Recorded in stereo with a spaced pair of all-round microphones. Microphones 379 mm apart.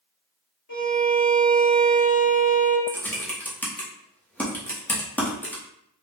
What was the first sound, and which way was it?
A violin, 50° left (ahead or behind).